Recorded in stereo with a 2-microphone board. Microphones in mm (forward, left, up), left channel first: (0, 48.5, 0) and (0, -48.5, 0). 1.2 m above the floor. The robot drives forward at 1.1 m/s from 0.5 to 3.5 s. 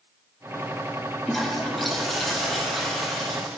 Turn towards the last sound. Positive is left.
turn(degrees=0)  # may be behind; listen again after turning